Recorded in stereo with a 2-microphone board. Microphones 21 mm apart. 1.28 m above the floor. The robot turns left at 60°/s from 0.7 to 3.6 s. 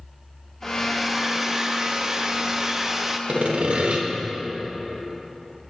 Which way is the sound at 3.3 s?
85° right.